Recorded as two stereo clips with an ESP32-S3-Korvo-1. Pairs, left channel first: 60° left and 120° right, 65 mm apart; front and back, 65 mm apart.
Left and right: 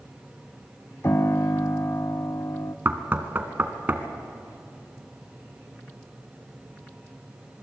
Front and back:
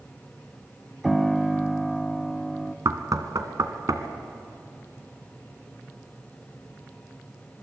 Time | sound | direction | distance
1.0 | a piano | 95° left | 0.6 m
2.9 | knocking | 175° right | 1.7 m